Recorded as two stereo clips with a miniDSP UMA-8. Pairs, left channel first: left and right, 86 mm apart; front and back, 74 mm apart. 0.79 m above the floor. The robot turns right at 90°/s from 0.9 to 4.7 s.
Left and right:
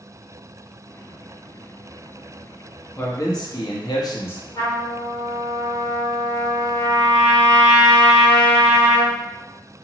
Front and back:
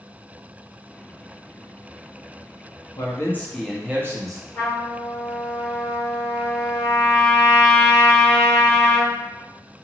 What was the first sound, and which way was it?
A man speaking, 25° left.